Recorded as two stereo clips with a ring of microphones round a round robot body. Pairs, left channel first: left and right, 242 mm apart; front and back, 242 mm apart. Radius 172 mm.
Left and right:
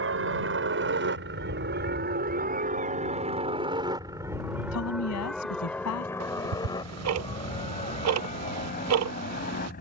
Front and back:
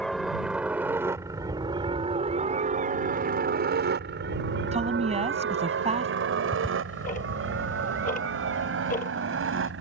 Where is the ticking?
70° right.